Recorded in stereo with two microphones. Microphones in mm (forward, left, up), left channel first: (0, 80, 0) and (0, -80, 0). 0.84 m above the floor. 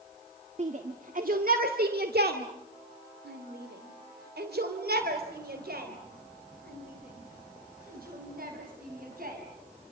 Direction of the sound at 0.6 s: 45° right (ahead or behind).